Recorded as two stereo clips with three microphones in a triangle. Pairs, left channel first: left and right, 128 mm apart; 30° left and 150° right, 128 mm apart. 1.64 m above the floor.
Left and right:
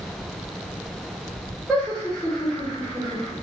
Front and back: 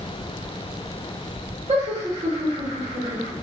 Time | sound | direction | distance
1.7 | laughter | straight behind | 1.3 m